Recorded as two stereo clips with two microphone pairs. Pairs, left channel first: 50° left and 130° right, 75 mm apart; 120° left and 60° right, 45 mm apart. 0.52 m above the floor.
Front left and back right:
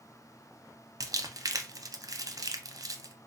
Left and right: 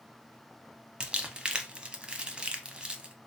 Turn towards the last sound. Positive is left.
turn(degrees=-120)